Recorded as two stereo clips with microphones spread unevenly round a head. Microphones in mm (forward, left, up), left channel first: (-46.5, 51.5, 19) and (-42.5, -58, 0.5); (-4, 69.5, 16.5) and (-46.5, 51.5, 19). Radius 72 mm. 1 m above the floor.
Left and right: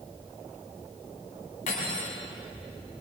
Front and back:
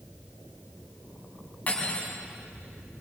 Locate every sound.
1.7 s cutlery clinking: 80° left, 4.5 m